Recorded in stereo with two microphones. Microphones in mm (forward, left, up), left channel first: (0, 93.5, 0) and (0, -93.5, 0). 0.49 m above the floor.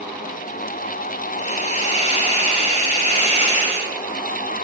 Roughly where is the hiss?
Left.